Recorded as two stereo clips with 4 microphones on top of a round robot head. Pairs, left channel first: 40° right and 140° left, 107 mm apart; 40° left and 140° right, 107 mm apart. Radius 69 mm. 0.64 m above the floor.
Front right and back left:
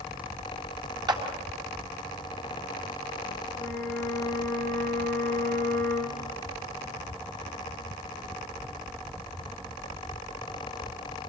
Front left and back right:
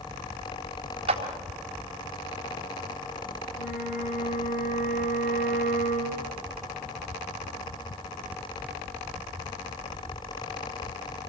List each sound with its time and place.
1.1 s a clap: 170° right, 3.5 m
3.5 s a flute: 35° left, 4.5 m